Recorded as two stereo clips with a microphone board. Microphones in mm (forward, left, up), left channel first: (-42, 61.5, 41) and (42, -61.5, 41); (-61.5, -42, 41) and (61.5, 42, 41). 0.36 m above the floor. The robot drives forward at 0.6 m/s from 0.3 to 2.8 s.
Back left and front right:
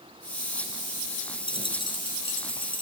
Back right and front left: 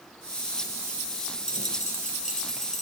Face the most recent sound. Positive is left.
turn(degrees=180)